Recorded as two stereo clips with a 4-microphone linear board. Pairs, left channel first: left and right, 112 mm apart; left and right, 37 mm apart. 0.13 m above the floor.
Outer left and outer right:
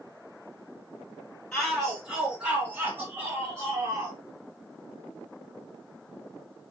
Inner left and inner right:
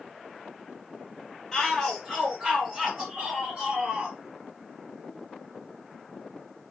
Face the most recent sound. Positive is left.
turn(degrees=-35)  # may be behind; listen again after turning